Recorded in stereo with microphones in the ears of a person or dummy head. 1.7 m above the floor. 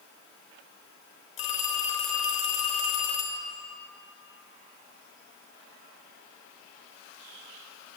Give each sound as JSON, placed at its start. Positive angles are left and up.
{"t": 1.4, "sound": "a phone ringing", "side_deg": 40, "distance_m": 1.0}